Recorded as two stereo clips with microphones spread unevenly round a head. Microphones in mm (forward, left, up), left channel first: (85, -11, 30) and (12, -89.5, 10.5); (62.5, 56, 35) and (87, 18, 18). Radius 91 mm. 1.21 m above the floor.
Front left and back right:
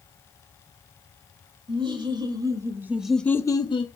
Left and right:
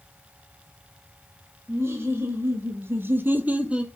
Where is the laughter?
95° right, 2.5 m; by 3.9 s 5° left, 1.3 m.